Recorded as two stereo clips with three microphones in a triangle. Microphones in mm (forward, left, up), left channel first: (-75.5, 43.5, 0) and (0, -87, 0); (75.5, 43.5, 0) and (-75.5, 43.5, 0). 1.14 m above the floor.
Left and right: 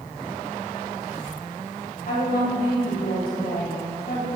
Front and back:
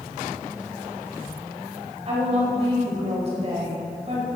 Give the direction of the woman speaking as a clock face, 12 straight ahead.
8 o'clock.